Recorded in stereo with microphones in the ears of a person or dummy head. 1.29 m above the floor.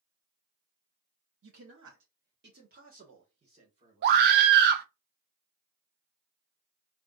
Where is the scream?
55° right (ahead or behind), 0.6 m.